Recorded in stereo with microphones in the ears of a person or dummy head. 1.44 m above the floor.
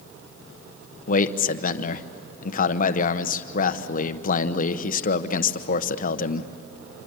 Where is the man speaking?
40° left (ahead or behind), 1.0 m.